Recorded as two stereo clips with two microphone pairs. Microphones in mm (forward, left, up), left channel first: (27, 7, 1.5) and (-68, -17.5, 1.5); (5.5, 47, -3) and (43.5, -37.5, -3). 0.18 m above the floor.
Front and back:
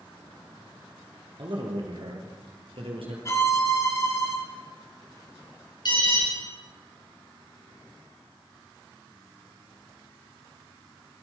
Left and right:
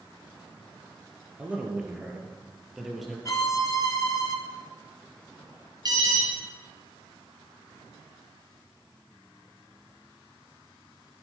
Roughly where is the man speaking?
Behind right.